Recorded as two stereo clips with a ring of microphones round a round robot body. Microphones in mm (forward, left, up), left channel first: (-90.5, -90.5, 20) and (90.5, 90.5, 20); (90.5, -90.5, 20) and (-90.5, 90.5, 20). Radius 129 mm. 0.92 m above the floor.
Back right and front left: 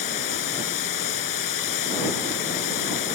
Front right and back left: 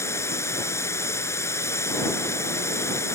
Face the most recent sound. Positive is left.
turn(degrees=-125)